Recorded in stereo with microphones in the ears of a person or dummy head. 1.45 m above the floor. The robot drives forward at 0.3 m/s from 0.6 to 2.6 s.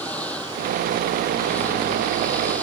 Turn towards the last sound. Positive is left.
turn(degrees=5)  # may be behind; listen again after turning